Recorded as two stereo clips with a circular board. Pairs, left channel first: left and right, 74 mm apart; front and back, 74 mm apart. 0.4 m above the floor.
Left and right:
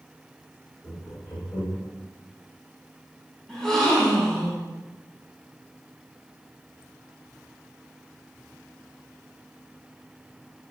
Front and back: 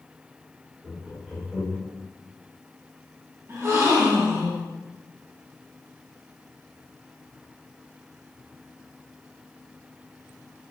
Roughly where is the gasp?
Behind.